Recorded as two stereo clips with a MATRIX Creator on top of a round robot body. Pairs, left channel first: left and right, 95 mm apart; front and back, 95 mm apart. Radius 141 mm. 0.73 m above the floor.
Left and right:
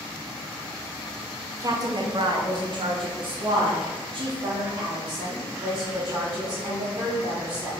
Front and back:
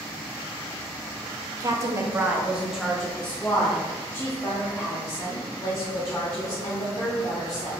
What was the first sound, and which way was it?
A woman speaking, 135° right.